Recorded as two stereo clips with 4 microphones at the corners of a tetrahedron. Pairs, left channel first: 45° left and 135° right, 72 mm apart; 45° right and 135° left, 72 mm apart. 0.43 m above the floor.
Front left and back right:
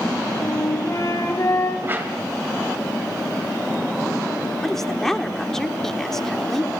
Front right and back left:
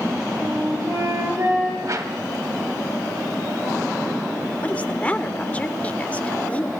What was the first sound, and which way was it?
A flute, 90° left.